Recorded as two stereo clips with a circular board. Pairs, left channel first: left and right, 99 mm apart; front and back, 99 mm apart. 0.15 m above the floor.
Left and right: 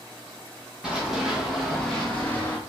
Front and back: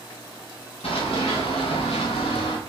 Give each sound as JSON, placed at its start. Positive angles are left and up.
{"t": 0.8, "sound": "running footsteps", "azimuth_deg": -10, "distance_m": 1.9}